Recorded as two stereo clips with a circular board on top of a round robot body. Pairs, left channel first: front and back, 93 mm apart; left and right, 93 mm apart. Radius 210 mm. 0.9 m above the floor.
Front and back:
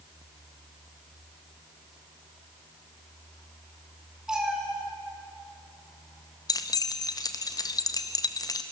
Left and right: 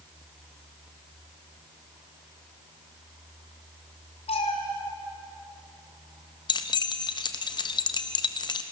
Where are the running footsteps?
No running footsteps in this recording.